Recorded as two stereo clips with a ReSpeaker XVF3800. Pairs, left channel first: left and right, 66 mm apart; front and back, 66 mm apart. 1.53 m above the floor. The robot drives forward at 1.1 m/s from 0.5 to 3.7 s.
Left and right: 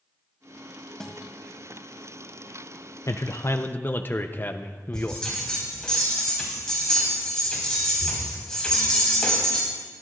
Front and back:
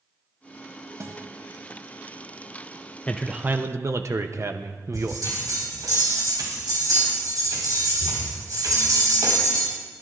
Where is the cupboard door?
I don't hear a cupboard door.